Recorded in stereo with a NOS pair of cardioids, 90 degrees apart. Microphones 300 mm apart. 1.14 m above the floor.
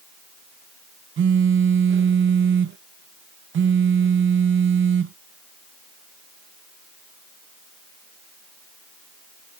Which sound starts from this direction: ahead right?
A phone buzzing, at 1.2 s.